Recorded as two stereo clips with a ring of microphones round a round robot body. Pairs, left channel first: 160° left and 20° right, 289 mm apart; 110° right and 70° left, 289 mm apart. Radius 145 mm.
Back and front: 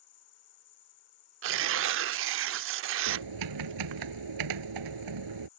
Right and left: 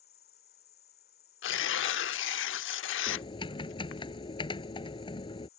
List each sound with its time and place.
0.0 s an insect: 170° right
1.4 s tearing paper: 65° right
3.1 s typing on a keyboard: 40° right